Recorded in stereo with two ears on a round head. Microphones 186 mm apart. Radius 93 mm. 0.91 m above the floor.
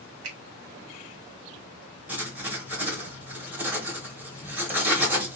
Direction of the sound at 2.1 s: 10° right (ahead or behind).